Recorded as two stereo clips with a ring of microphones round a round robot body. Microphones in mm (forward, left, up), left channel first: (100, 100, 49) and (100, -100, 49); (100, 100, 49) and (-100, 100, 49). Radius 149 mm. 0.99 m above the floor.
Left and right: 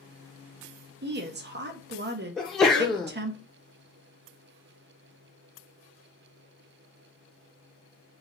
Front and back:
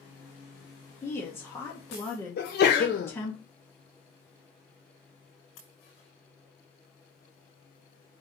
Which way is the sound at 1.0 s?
75° right.